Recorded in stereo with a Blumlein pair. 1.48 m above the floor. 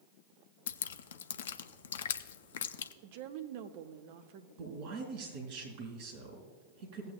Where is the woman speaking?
50° right, 0.9 m.